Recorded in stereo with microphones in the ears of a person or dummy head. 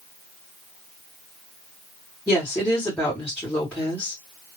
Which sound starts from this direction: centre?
A woman speaking, at 2.3 s.